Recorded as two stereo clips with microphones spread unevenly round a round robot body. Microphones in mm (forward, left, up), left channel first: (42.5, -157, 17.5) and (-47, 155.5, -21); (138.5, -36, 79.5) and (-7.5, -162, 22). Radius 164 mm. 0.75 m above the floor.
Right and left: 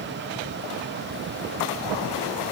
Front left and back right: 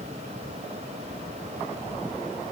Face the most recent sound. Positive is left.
No sound to turn to.